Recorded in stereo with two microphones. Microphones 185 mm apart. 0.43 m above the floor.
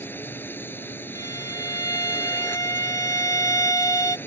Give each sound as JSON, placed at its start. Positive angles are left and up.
{"t": 0.0, "sound": "a drone", "side_deg": 10}
{"t": 1.1, "sound": "a violin", "side_deg": 15}